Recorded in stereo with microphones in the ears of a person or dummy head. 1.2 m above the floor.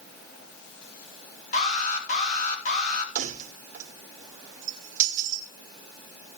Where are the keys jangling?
40° right (ahead or behind), 2.5 m.